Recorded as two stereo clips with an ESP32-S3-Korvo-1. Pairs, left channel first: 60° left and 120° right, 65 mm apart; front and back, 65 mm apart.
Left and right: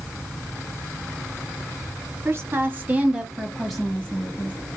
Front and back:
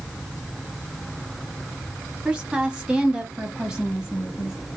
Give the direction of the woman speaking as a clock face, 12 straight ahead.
4 o'clock.